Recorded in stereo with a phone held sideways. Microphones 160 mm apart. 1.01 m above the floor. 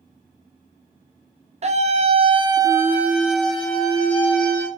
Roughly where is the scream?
Right.